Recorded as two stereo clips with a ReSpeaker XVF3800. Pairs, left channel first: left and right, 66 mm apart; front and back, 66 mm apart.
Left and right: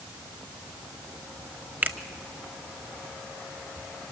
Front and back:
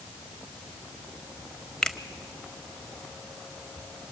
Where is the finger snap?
70° right, 0.8 m.